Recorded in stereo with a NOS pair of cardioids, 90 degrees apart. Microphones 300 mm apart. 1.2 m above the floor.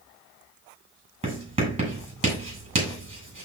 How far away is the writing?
About 6.5 m.